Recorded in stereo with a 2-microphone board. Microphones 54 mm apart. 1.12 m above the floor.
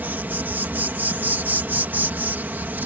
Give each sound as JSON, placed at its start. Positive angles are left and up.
{"t": 0.0, "sound": "an insect", "side_deg": -35}